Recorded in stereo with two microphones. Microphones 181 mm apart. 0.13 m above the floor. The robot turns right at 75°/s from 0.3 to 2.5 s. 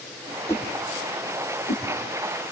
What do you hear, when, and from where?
0.5 s a whoosh: 15° left (ahead or behind), 4 m